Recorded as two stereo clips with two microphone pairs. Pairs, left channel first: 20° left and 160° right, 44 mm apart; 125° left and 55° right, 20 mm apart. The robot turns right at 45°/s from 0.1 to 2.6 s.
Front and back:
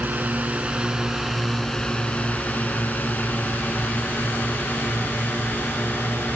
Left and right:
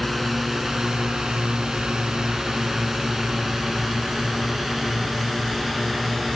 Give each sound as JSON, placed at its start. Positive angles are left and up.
{"t": 0.0, "sound": "a drone", "azimuth_deg": -145}